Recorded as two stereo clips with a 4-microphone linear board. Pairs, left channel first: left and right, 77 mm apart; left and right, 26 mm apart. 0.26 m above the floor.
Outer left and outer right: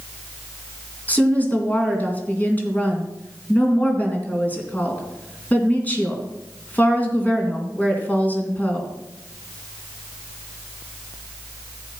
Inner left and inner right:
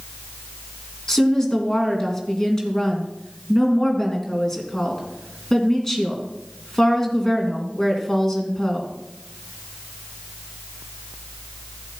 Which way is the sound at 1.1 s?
20° left (ahead or behind).